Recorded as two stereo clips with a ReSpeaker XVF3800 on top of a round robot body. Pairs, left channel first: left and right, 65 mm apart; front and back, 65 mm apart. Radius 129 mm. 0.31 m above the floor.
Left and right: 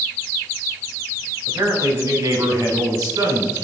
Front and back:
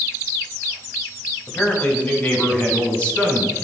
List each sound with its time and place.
1.5 s a man speaking: 60° right, 3 m; by 3.6 s 70° right, 5 m